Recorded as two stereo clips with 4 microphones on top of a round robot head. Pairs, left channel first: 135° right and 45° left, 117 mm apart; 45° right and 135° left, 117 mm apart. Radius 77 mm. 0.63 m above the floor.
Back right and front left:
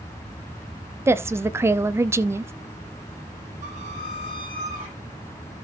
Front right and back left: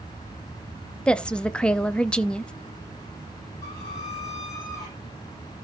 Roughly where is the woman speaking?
Ahead left.